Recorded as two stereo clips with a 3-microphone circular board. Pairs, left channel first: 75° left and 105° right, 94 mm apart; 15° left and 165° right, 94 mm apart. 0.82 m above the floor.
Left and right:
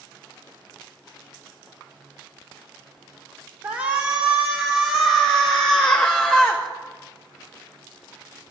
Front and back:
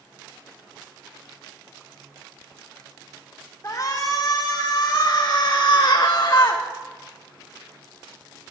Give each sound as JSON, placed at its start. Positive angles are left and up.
{"t": 3.6, "sound": "a shout", "azimuth_deg": -45, "distance_m": 2.5}